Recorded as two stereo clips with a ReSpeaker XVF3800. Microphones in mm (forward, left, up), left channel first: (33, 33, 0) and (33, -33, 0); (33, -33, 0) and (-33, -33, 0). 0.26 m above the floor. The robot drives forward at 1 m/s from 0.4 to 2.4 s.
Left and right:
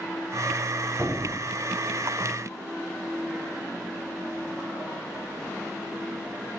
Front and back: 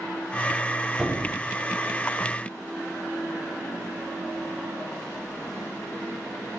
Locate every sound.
1.0 s a squeak: 115° right, 0.6 m; by 1.4 s 150° right, 0.8 m